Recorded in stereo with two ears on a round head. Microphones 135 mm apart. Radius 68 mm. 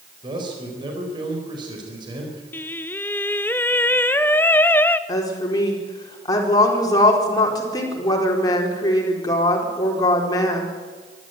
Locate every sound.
0.2 s a man speaking: 30° right (ahead or behind), 4.5 m
2.5 s singing: 15° left (ahead or behind), 0.6 m
5.1 s a woman speaking: 25° left (ahead or behind), 4 m